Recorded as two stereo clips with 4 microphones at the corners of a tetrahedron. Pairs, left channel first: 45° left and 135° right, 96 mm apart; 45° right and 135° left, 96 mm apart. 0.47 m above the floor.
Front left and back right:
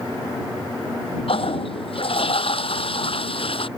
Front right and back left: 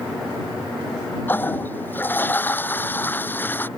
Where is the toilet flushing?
25° left.